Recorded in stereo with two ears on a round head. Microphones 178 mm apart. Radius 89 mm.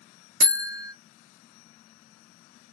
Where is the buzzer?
50° right (ahead or behind), 1.3 m.